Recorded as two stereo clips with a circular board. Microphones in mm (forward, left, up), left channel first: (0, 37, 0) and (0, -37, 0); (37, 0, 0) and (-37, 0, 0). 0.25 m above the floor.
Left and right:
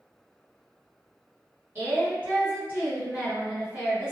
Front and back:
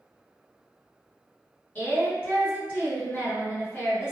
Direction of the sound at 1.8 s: 40° right.